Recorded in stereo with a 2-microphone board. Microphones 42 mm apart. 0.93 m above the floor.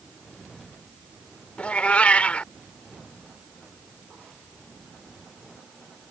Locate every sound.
1.6 s a cat meowing: 35° left (ahead or behind)